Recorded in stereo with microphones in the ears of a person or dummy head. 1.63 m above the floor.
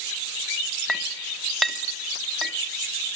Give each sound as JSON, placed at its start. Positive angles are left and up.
{"t": 0.9, "sound": "a clink", "side_deg": -10, "distance_m": 2.5}